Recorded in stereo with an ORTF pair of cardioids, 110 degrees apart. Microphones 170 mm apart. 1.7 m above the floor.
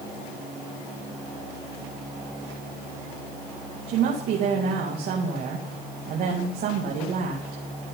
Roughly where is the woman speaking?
Ahead right.